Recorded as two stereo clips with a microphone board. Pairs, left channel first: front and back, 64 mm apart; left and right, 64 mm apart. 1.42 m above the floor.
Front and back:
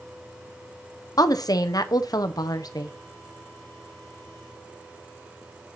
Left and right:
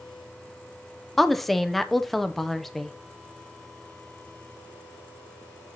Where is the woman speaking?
5° left, 0.7 m.